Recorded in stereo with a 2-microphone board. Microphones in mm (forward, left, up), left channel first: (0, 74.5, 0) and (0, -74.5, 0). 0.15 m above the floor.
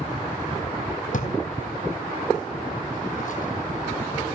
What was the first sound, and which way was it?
A drawer, 60° left (ahead or behind).